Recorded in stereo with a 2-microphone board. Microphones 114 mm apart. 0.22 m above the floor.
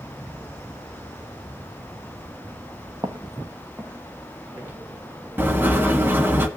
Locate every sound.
3.0 s footsteps: 35° right (ahead or behind), 1.4 m; by 4.8 s 10° right (ahead or behind), 3 m
5.4 s writing: 15° right (ahead or behind), 1.6 m